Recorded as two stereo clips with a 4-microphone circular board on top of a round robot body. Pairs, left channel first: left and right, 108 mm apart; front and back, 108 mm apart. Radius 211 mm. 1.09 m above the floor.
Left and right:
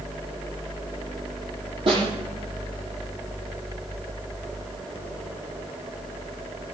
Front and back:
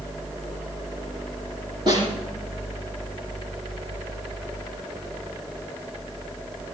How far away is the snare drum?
About 8.5 m.